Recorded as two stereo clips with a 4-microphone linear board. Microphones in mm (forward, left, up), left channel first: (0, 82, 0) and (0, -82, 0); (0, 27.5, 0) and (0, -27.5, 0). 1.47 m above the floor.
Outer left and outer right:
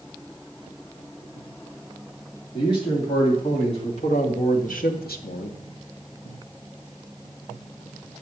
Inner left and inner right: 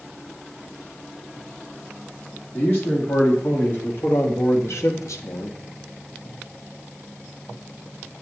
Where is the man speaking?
35° left (ahead or behind), 3.5 m; by 5.6 s 45° left (ahead or behind), 0.7 m.